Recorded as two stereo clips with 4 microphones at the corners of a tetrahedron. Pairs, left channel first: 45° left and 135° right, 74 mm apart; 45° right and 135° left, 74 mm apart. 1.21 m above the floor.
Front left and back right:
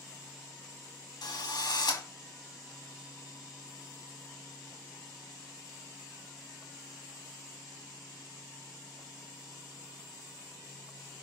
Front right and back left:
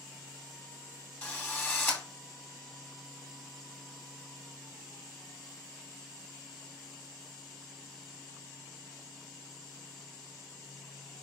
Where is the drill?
15° left, 2 m.